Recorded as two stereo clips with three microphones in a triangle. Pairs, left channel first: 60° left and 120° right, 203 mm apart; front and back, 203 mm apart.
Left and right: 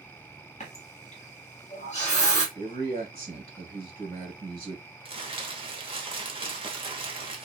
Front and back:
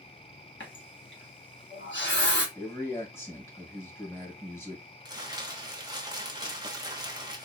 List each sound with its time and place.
0.6 s a running tap: 5° left, 1.3 m
2.5 s a man speaking: 75° right, 1.8 m
5.0 s crumpling: 135° right, 0.8 m